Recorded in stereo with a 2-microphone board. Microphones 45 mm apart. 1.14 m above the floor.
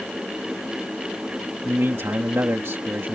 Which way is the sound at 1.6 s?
65° right (ahead or behind).